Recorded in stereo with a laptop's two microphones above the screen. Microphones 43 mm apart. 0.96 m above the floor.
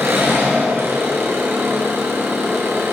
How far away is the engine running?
About 6 m.